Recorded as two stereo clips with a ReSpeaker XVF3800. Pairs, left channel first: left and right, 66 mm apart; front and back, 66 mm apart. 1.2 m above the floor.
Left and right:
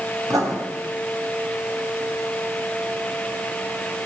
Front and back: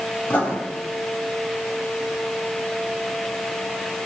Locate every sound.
0.3 s writing: 65° right, 2.5 m